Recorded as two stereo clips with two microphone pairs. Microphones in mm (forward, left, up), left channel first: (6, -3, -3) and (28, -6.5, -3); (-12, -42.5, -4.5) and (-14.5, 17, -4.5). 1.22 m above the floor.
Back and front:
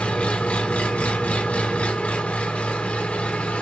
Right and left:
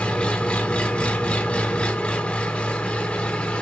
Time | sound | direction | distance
0.0 | an engine running | 160° right | 0.8 m